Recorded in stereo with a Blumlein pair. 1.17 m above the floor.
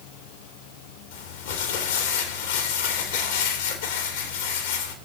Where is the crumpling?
55° left, 1.8 m.